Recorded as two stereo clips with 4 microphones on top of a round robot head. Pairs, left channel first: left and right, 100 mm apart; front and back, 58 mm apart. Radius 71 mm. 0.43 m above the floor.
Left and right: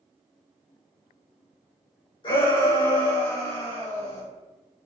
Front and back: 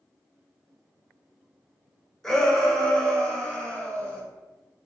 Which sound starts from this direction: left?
A shout, at 2.2 s.